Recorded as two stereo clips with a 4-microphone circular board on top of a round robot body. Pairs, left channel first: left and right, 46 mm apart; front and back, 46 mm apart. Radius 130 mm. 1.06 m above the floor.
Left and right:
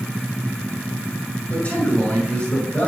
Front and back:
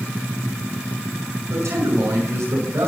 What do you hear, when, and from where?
1.5 s a man speaking: 155° left, 5.5 m